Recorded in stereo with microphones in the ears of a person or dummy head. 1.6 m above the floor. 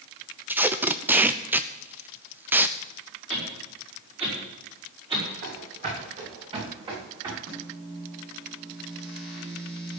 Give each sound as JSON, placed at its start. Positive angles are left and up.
{"t": 0.5, "sound": "tape being pulled", "side_deg": -10, "distance_m": 0.6}
{"t": 3.3, "sound": "a whoosh", "side_deg": -30, "distance_m": 5.5}
{"t": 5.4, "sound": "running footsteps", "side_deg": -50, "distance_m": 6.0}
{"t": 7.5, "sound": "a microwave", "side_deg": -55, "distance_m": 8.5}